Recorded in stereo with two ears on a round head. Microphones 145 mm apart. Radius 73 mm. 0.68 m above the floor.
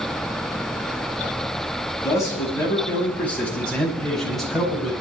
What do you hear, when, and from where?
2.0 s a man speaking: 20° left (ahead or behind), 5.5 m; by 4.9 s 5° right (ahead or behind), 6 m